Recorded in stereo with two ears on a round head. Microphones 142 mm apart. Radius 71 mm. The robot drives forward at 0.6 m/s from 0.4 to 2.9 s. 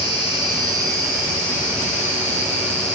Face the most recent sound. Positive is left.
turn(degrees=-15)  # may be behind; listen again after turning